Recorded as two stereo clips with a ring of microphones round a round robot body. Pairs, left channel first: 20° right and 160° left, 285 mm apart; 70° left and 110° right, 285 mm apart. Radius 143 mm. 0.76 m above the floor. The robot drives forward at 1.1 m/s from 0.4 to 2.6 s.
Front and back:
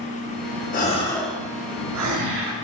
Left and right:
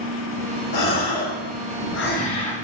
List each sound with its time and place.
0.7 s a gasp: 40° left, 1.2 m; by 2.5 s 145° left, 1.3 m